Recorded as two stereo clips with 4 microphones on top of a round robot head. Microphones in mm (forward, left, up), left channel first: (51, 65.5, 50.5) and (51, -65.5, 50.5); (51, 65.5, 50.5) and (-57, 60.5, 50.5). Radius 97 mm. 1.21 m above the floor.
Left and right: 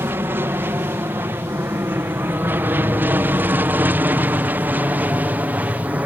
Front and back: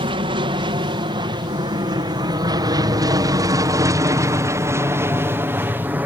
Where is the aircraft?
160° right; by 6.1 s 145° right.